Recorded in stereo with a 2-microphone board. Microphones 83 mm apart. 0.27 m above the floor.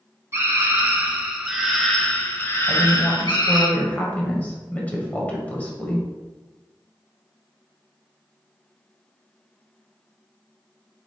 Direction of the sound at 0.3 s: 35° right (ahead or behind).